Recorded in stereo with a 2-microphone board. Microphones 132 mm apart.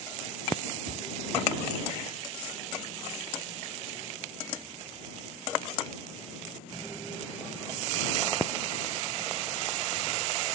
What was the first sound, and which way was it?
A cupboard door, 70° right (ahead or behind).